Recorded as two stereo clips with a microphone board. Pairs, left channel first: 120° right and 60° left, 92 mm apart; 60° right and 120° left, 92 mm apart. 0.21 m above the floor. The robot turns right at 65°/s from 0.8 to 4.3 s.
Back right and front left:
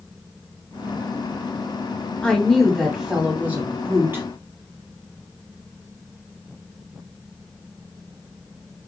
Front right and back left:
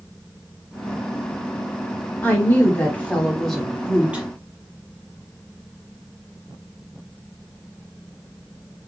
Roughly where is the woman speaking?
Ahead right.